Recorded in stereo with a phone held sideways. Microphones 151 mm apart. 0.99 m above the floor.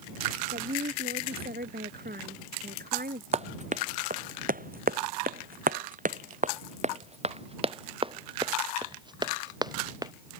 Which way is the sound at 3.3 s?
45° right (ahead or behind).